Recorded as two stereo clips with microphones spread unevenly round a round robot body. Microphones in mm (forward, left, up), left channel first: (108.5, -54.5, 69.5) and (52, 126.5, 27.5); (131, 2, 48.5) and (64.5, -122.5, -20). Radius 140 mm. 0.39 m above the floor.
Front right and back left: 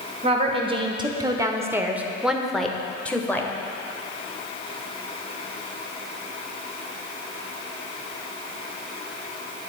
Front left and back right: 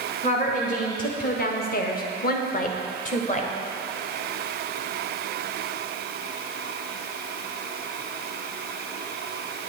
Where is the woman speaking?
125° left, 1.2 m; by 3.5 s 15° left, 1.7 m.